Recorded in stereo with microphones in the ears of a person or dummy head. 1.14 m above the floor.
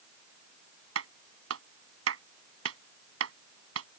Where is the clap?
85° right.